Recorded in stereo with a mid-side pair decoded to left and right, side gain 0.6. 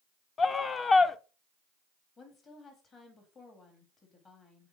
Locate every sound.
0.4 s a scream: 30° left, 0.6 m
2.2 s a woman speaking: 35° left, 2.5 m